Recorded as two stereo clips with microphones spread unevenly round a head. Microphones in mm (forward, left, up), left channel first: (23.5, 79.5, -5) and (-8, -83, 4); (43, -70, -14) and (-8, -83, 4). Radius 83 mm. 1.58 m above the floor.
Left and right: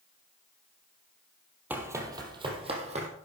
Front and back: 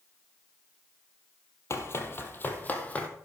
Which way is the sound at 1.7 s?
25° right.